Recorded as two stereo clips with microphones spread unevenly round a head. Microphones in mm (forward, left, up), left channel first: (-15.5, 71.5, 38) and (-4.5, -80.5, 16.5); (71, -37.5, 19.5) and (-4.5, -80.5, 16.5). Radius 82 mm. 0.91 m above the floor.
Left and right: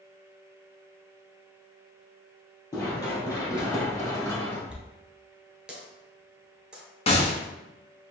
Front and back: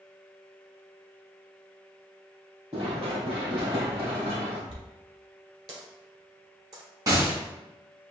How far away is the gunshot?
About 1.0 m.